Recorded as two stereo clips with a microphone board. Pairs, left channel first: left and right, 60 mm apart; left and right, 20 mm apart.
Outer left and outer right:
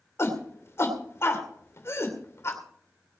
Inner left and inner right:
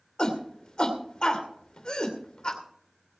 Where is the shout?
45° left (ahead or behind), 2.5 m.